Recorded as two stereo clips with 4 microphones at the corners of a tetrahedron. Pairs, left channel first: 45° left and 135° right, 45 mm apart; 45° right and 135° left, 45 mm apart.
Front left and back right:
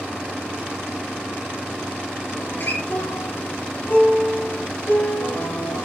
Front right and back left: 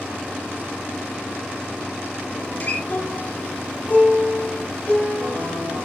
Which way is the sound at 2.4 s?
5° left.